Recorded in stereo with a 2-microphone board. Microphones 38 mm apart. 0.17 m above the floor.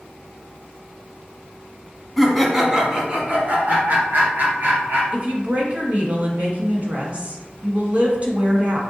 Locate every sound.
2.2 s laughter: centre (ahead or behind), 1.1 m; by 5.0 s 55° right (ahead or behind), 3 m
5.1 s a woman speaking: 40° right (ahead or behind), 1.3 m